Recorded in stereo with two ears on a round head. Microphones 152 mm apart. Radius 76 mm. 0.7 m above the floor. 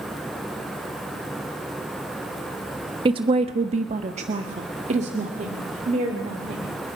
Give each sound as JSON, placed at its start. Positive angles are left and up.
{"t": 3.0, "sound": "a woman speaking", "side_deg": -30, "distance_m": 1.2}